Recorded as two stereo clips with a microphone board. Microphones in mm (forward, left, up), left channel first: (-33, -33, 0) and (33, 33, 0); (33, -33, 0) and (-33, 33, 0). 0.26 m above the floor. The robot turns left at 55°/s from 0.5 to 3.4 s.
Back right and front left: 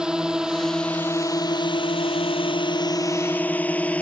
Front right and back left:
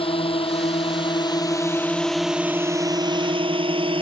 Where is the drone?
35° right; by 4.0 s 150° left.